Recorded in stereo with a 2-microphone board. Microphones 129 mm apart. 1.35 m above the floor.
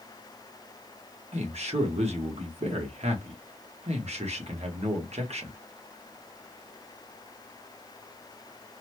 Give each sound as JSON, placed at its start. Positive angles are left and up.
{"t": 1.3, "sound": "a man speaking", "side_deg": -55, "distance_m": 1.1}